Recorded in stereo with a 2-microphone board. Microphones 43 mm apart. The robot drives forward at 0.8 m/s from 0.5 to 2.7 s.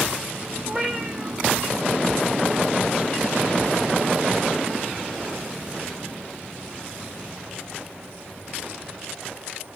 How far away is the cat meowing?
About 2.5 m.